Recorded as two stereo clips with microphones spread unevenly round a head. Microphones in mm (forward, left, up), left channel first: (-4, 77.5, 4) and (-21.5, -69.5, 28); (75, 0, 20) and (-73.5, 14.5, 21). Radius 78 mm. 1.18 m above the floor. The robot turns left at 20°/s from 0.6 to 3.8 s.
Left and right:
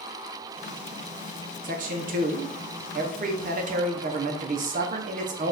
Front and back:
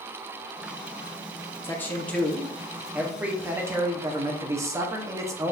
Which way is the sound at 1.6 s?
75° right.